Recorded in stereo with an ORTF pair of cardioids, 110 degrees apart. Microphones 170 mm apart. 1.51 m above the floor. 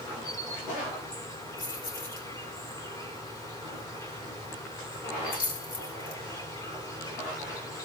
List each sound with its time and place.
0.0 s an insect: 20° left, 3.5 m
1.6 s keys jangling: 55° left, 3 m